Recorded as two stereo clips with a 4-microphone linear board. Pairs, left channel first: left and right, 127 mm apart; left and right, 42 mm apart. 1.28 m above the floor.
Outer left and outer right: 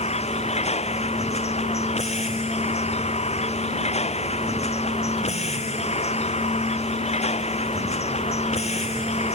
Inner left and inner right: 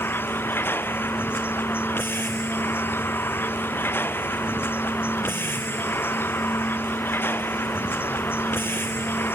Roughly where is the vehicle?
Left.